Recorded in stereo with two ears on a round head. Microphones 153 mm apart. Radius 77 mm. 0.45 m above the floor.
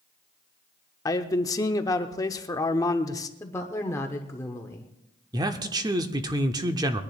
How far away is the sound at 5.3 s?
About 0.9 m.